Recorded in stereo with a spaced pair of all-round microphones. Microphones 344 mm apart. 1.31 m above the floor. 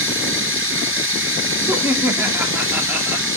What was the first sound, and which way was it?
Running water, 35° right (ahead or behind).